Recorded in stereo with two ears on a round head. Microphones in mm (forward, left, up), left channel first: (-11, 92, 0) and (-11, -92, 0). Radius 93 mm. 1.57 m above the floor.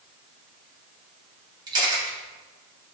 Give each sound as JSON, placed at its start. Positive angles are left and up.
{"t": 1.7, "sound": "a camera shutter", "side_deg": -25, "distance_m": 3.0}